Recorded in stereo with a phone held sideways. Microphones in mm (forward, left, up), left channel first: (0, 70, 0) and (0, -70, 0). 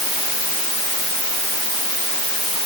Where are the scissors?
No scissors in this recording.